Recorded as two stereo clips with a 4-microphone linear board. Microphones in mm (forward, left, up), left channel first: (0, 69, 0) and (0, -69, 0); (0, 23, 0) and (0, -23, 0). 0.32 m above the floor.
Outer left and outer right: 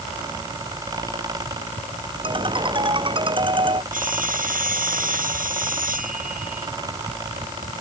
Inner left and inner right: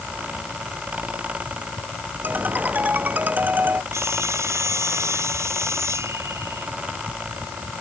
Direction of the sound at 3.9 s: 80° right.